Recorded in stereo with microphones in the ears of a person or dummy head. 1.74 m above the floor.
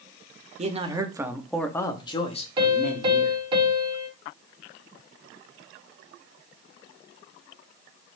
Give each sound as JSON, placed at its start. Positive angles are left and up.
{"t": 0.6, "sound": "a man speaking", "side_deg": -35, "distance_m": 0.9}
{"t": 2.6, "sound": "a piano", "side_deg": -25, "distance_m": 1.5}